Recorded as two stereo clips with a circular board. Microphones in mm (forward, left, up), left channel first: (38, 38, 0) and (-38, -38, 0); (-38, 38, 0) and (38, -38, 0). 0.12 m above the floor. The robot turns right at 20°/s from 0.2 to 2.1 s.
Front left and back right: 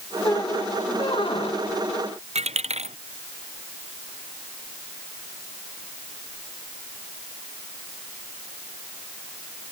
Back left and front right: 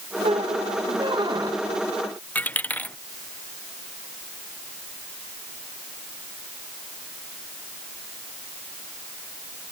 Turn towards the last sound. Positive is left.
turn(degrees=-150)